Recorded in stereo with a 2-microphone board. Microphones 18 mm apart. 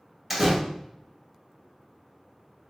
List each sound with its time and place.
0.3 s a door slam: 15° right (ahead or behind), 1.5 m